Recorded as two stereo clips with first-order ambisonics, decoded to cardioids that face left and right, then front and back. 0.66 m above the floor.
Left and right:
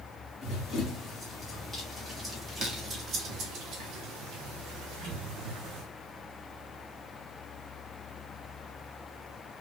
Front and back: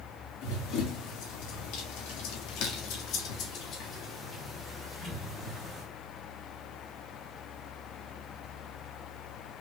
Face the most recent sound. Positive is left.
turn(degrees=-95)